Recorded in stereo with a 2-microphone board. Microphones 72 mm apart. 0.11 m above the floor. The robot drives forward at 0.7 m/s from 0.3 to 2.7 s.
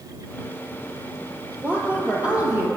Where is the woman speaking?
20° right (ahead or behind), 2.5 m; by 2.7 s 15° right (ahead or behind), 3 m.